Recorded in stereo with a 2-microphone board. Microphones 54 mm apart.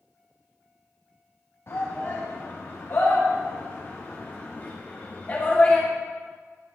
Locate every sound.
1.7 s a shout: 50° left (ahead or behind), 5 m; by 5.9 s 25° left (ahead or behind), 2 m